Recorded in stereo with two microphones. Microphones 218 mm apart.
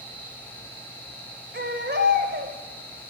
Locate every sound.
1.5 s a baby crying: 55° right (ahead or behind), 2 m